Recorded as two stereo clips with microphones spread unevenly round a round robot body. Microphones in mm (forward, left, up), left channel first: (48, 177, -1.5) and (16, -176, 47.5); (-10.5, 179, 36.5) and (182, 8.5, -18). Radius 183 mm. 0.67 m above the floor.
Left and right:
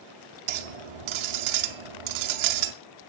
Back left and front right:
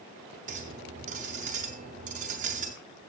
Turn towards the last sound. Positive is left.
turn(degrees=-110)